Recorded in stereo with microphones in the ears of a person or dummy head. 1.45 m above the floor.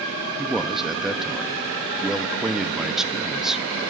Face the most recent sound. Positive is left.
turn(degrees=0)  # may be behind; listen again after turning